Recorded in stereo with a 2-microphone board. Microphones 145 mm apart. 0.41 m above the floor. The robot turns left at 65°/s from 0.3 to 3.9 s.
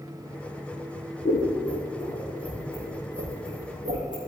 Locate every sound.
1.2 s scissors: 70° left (ahead or behind), 3.5 m; by 4.2 s 60° right (ahead or behind), 3.5 m